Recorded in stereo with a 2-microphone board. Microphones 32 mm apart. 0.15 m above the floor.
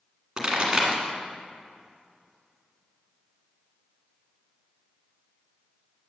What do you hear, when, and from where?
0.4 s a pop: 25° right (ahead or behind), 1.8 m